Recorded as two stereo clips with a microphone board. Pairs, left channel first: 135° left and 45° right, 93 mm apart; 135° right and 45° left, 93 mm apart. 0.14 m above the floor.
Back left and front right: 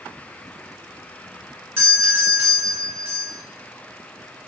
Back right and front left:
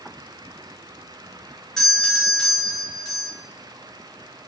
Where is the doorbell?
70° right, 1.6 m.